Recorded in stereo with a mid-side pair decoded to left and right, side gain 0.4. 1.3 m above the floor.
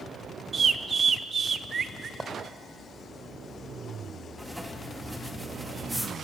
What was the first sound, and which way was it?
A bird, 45° right.